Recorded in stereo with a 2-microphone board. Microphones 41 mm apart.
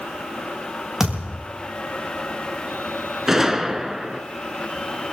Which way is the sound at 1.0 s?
10° right (ahead or behind).